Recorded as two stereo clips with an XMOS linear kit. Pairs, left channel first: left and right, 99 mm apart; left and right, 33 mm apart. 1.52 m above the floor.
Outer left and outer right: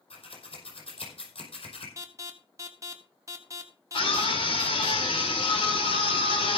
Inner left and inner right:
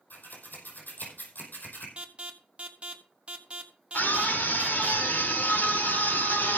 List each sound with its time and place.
0.1 s scissors: 75° left (ahead or behind), 5 m
2.0 s an alarm: 30° right (ahead or behind), 1.6 m
3.9 s a scream: 65° left (ahead or behind), 4.5 m